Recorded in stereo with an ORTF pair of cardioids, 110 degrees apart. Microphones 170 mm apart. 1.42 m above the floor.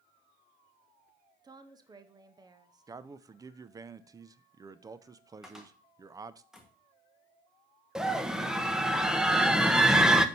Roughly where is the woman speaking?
Ahead right.